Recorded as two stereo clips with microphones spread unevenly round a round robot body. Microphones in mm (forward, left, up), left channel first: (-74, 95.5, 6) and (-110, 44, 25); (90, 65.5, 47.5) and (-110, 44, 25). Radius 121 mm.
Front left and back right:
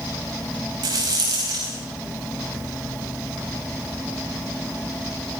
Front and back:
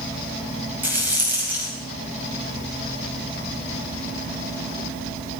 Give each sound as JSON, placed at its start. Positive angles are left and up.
{"t": 0.8, "sound": "a rattle", "azimuth_deg": -90, "distance_m": 5.0}